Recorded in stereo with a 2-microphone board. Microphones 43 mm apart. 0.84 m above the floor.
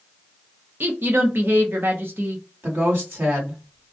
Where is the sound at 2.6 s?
65° right (ahead or behind), 1.6 m.